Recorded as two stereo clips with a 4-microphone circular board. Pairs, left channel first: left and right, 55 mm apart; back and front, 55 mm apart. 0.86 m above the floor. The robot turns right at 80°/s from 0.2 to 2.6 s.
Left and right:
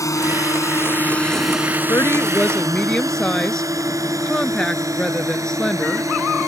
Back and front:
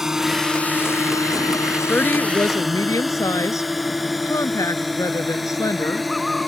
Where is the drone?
80° left; by 6.5 s 90° right.